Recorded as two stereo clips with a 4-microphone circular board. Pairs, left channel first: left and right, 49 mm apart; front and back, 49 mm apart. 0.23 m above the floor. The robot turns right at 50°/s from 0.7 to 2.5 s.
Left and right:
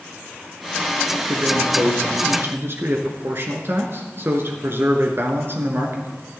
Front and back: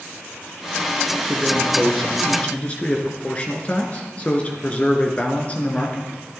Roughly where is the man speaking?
Behind right.